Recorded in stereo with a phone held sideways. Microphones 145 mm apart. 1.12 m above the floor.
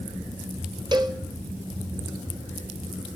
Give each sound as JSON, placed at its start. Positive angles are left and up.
{"t": 0.9, "sound": "a cowbell", "side_deg": -30, "distance_m": 0.6}